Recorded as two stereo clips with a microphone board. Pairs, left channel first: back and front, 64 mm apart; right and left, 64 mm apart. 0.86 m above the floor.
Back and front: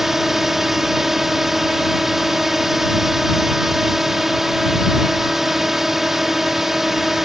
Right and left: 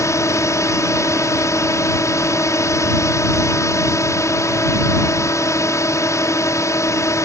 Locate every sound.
0.0 s a drone: 85° right